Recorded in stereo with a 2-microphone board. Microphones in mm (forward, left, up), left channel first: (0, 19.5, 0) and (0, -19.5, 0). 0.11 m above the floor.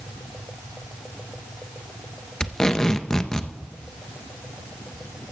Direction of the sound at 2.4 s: 15° left (ahead or behind).